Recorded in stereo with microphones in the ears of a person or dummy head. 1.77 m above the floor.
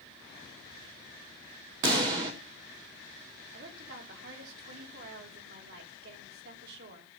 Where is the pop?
25° right (ahead or behind), 1.2 m.